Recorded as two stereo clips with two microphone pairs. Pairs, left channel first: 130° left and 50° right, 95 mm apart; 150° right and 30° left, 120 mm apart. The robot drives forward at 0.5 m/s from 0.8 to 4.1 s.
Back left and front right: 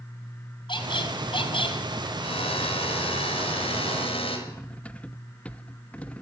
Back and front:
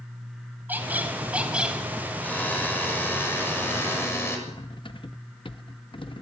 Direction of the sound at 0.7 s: 105° left.